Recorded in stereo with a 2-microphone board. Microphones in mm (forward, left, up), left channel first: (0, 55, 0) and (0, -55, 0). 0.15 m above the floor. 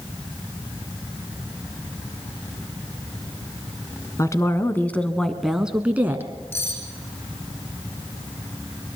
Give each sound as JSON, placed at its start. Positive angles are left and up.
{"t": 4.2, "sound": "a woman speaking", "side_deg": 30, "distance_m": 1.4}
{"t": 6.5, "sound": "cutlery clinking", "side_deg": 20, "distance_m": 5.5}